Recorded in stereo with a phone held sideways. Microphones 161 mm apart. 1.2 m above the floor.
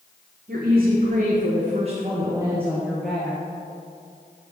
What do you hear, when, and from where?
0.5 s a woman speaking: 65° right (ahead or behind), 1.2 m; by 3.4 s 10° left (ahead or behind), 1.0 m